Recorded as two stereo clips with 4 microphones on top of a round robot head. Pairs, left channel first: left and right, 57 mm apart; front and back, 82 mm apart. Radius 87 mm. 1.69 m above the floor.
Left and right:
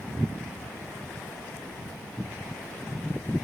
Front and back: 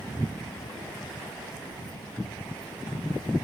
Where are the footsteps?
30° left, 7 m.